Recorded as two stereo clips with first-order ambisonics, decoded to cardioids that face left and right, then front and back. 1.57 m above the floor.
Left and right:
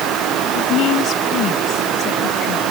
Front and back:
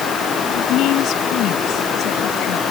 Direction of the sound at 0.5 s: 45° left.